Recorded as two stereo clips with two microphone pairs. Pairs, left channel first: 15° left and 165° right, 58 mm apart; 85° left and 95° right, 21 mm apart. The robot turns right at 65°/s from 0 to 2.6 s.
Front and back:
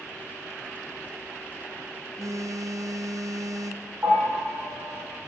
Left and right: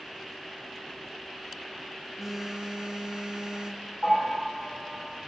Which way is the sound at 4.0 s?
125° left.